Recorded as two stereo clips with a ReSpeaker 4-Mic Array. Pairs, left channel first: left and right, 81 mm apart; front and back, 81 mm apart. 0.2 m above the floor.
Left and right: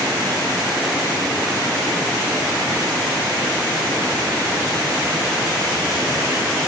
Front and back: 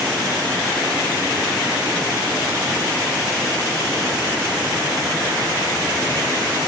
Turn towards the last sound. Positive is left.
No sound to turn to.